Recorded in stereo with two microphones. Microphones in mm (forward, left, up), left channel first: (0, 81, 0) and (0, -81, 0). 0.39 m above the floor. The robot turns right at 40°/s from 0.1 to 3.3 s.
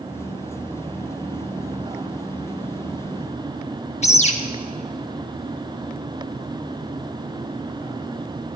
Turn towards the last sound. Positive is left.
turn(degrees=45)  # may be behind; listen again after turning